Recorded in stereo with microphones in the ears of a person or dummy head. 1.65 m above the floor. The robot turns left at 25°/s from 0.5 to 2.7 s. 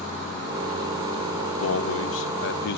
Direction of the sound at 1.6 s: 80° left.